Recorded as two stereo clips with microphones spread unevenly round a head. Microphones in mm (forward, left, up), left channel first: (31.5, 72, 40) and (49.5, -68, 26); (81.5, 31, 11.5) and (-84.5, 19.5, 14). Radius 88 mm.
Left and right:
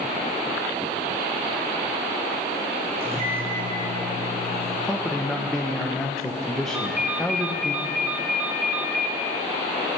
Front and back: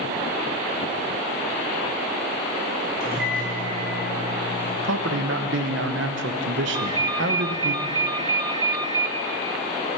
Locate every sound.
3.0 s a microwave: 140° right, 4.5 m
4.8 s a man speaking: 175° right, 0.9 m
6.7 s a ringtone: 170° right, 0.5 m